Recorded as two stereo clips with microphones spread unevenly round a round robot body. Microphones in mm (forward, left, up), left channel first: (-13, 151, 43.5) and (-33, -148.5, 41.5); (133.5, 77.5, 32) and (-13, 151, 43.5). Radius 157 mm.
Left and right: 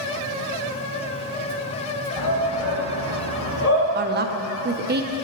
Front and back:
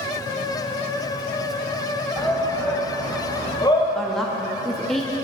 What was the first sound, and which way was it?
A shout, 55° left.